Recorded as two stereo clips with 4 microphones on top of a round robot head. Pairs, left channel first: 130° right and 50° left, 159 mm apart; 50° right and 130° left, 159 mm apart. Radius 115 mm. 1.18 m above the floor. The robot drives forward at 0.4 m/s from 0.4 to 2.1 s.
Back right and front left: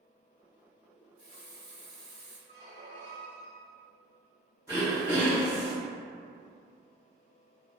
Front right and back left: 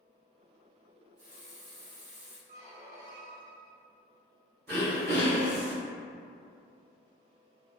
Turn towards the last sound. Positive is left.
turn(degrees=155)